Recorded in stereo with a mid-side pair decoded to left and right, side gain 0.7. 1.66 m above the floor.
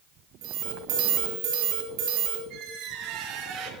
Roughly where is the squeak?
Right.